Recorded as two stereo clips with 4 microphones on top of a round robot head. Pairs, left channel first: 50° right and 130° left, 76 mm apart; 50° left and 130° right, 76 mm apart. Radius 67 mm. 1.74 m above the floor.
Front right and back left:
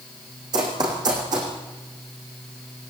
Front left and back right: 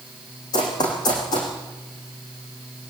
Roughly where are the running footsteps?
Left.